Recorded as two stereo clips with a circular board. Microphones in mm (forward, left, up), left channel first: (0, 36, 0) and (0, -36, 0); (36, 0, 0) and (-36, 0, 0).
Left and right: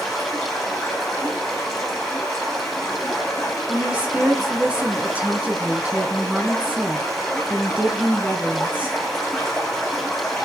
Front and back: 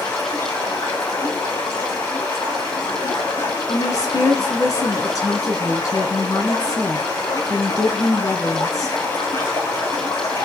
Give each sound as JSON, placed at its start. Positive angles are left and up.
{"t": 0.0, "sound": "running water", "azimuth_deg": 5, "distance_m": 5.0}
{"t": 3.7, "sound": "a woman speaking", "azimuth_deg": -25, "distance_m": 1.9}